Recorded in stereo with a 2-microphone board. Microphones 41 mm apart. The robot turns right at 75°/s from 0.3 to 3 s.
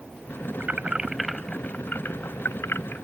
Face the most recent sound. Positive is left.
turn(degrees=50)  # may be behind; listen again after turning